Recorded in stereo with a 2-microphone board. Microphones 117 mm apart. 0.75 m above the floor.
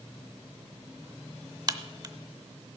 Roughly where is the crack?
Right.